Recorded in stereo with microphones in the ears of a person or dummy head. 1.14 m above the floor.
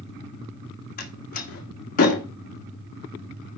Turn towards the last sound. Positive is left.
turn(degrees=45)  # may be behind; listen again after turning